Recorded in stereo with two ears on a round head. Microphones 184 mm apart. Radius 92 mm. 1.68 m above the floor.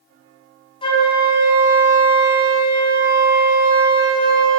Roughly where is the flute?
Left.